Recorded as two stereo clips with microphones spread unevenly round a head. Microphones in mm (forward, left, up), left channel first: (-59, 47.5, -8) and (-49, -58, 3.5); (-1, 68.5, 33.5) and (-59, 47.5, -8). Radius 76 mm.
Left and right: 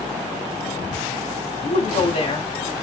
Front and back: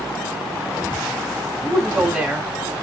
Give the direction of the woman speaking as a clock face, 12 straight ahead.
8 o'clock.